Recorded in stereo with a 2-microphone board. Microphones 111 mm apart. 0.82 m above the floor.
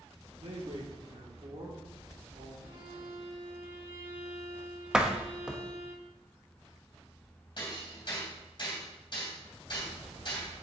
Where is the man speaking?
75° right (ahead or behind), 2 m.